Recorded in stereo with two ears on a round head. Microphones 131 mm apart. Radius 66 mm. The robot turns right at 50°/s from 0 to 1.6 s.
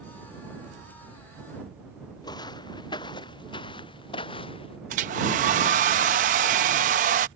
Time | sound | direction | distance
2.2 | footsteps | 30° left (ahead or behind) | ?
4.9 | a hair dryer | 55° right (ahead or behind) | ?